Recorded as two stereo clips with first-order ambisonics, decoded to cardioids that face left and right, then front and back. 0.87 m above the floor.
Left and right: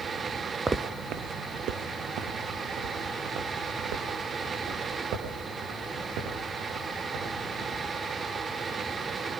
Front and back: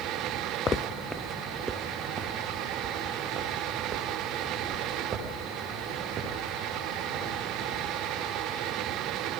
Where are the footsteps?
25° right, 0.8 m; by 7.8 s 120° right, 10 m.